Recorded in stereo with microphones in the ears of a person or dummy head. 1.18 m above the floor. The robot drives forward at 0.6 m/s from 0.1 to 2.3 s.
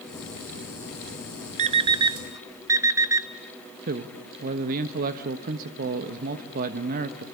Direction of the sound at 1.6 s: 40° right (ahead or behind).